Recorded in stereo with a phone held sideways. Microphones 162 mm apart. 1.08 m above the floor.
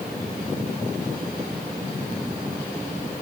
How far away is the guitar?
No guitar in this recording.